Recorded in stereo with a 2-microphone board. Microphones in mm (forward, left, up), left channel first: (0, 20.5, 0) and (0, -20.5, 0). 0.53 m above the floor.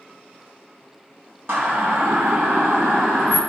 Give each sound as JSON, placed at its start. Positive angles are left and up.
{"t": 1.5, "sound": "a siren", "side_deg": -75, "distance_m": 2.0}